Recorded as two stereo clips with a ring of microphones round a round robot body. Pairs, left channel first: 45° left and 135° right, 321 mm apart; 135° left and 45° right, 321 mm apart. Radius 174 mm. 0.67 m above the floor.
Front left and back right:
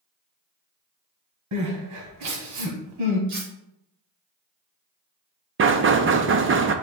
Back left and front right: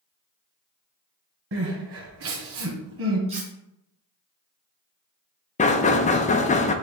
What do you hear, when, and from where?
1.5 s crying: 95° right, 1.4 m
3.3 s cutlery clinking: 115° right, 2 m
5.6 s knocking: 165° right, 0.7 m